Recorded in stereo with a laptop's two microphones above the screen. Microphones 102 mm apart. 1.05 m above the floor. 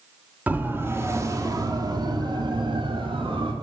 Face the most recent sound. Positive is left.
turn(degrees=-70)  # may be behind; listen again after turning